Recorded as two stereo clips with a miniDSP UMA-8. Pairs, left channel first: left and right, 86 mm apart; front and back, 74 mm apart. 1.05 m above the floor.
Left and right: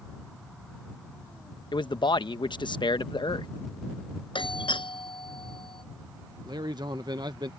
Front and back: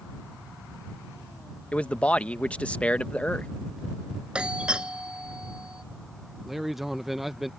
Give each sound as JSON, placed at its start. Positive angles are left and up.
{"t": 1.7, "sound": "a man speaking", "azimuth_deg": 70}
{"t": 4.3, "sound": "a doorbell", "azimuth_deg": 105}
{"t": 6.5, "sound": "a man speaking", "azimuth_deg": -95}